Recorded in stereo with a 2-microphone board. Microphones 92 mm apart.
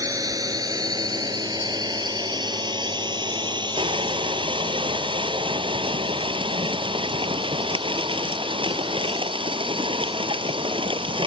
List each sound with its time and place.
0.0 s a drone: 45° right (ahead or behind); by 11.3 s 75° right (ahead or behind)
3.8 s crushing: 85° right